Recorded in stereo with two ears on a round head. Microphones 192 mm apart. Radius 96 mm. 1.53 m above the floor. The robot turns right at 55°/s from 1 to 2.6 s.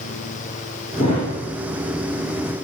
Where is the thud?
30° left (ahead or behind), 4 m; by 1.3 s 45° left (ahead or behind), 4 m.